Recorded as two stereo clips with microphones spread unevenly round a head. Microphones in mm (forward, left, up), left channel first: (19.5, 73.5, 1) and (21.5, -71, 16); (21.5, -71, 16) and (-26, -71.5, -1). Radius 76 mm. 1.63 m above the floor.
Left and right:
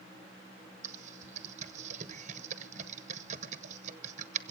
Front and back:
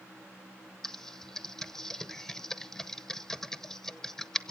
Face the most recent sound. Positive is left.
turn(degrees=-65)